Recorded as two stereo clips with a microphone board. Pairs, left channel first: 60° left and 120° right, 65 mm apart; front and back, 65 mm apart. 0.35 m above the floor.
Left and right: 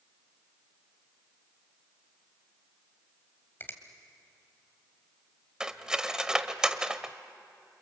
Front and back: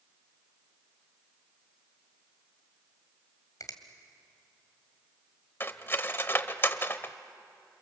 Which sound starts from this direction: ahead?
A finger snap, at 3.6 s.